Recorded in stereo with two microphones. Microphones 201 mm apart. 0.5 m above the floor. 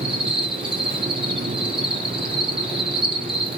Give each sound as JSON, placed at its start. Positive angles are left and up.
{"t": 0.0, "sound": "an insect", "side_deg": -25, "distance_m": 4.0}